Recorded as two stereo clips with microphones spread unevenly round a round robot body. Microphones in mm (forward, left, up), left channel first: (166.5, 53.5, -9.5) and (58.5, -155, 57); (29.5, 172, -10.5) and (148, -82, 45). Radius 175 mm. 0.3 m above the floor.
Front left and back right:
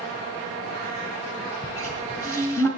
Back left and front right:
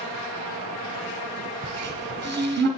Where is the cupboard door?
10° right, 2 m.